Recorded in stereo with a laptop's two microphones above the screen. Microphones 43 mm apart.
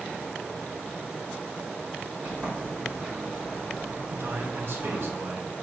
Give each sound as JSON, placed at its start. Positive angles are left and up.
{"t": 2.2, "sound": "a sliding door", "side_deg": -30, "distance_m": 2.0}
{"t": 4.2, "sound": "a man speaking", "side_deg": -60, "distance_m": 1.0}